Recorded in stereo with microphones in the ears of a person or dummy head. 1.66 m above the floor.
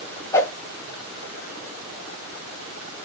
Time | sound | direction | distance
0.3 | a whoosh | 20° left (ahead or behind) | 0.9 m